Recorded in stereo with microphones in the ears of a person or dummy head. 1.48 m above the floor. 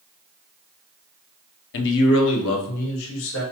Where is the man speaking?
65° left (ahead or behind), 0.7 m; by 3.4 s 75° left (ahead or behind), 2.0 m.